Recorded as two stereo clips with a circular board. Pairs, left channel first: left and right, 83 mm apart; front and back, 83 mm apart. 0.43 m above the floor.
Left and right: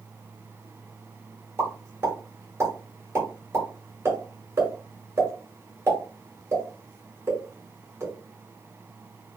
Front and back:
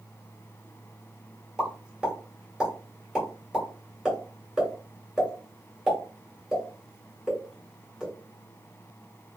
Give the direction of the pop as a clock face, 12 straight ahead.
4 o'clock.